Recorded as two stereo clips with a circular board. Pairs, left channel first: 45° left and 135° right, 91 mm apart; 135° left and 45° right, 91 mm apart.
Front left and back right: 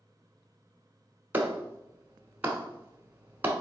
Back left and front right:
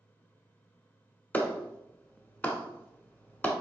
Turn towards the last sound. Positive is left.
turn(degrees=180)